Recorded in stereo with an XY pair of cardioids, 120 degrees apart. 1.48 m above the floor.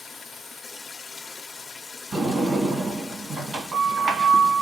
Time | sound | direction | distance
0.0 | running water | 25° left | 0.7 m
2.1 | a sliding door | 40° right | 1.5 m